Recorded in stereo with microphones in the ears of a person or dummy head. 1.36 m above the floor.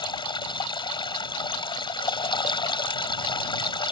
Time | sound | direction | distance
0.0 | running water | 25° left (ahead or behind) | ?